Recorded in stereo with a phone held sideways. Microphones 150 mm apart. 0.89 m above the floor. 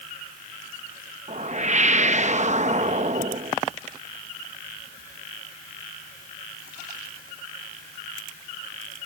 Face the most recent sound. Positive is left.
turn(degrees=-50)  # may be behind; listen again after turning